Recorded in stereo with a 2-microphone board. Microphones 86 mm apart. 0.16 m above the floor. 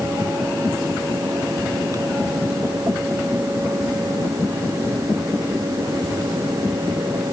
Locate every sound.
Only background noise.